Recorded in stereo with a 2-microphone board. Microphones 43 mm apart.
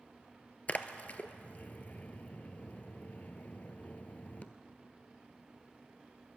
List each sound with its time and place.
0.7 s a splash: 35° left (ahead or behind), 0.6 m